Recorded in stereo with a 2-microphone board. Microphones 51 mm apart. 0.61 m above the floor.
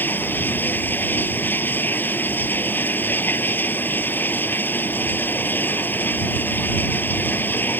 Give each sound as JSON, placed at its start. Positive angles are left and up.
{"t": 0.0, "sound": "running water", "side_deg": 40}